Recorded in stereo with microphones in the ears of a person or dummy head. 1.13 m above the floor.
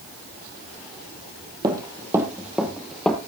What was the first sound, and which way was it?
Running footsteps, 20° right (ahead or behind).